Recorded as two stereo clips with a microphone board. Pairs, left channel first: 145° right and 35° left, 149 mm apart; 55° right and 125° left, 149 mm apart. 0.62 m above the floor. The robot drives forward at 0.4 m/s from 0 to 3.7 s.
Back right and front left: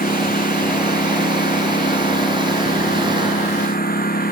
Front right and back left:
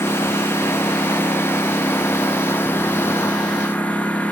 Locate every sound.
0.0 s a lawn mower: 130° right; by 4.3 s 135° right